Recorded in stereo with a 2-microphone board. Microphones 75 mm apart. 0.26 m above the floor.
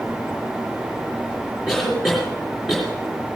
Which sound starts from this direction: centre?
A cough, at 1.7 s.